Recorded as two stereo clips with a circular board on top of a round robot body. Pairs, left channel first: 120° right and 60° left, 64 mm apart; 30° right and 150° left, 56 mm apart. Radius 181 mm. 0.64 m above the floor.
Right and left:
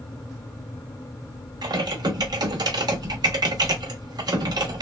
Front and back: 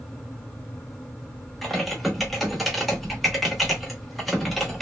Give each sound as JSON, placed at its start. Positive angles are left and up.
{"t": 1.6, "sound": "typing on a keyboard", "azimuth_deg": 60, "distance_m": 0.8}